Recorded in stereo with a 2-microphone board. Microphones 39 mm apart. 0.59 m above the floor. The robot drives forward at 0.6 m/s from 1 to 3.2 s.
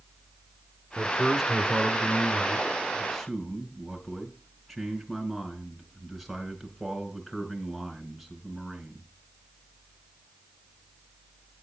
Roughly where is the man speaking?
Centre.